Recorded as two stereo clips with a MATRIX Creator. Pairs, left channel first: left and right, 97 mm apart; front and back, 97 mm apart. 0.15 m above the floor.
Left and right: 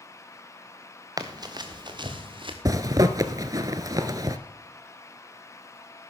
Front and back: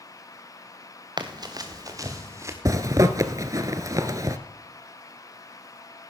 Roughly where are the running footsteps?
Behind right.